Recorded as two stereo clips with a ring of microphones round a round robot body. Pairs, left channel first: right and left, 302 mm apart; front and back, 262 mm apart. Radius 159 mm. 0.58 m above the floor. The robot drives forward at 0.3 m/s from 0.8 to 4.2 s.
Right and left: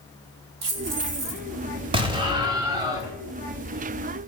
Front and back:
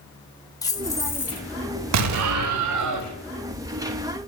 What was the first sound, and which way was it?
Keys jangling, 75° left.